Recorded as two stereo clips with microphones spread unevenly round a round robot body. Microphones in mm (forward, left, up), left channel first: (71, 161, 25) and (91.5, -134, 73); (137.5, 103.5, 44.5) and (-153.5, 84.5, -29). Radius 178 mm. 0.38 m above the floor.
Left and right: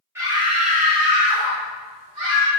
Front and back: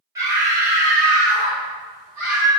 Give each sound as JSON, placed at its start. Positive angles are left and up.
{"t": 0.1, "sound": "a scream", "azimuth_deg": 180, "distance_m": 1.3}